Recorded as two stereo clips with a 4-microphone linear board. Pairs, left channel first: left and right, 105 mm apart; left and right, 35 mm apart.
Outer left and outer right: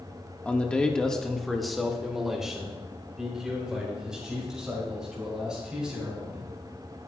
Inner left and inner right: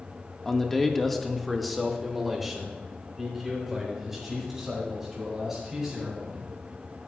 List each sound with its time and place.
0.5 s a man speaking: 15° left (ahead or behind), 1.2 m; by 6.5 s 10° right (ahead or behind), 7 m